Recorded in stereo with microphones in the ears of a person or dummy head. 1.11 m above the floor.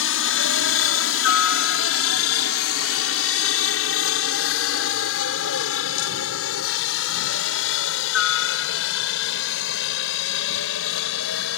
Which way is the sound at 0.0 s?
60° left (ahead or behind).